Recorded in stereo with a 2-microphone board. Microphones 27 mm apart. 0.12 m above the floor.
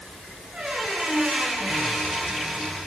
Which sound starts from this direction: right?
A squeak, at 0.5 s.